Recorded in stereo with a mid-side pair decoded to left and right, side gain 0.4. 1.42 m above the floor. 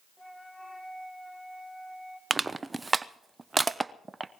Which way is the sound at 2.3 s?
25° right.